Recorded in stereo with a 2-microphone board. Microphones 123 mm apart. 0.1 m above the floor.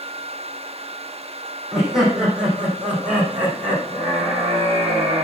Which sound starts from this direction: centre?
Laughter, at 1.7 s.